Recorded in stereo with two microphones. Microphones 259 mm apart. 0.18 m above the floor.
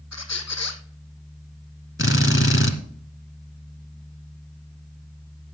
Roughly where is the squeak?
Left.